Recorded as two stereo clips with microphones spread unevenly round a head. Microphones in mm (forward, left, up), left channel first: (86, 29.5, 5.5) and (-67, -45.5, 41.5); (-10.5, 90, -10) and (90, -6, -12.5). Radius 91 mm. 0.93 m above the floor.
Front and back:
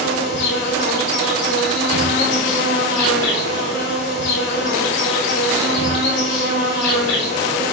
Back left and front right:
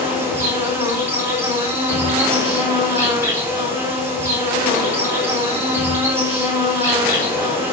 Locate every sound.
0.0 s an insect: 25° left, 4 m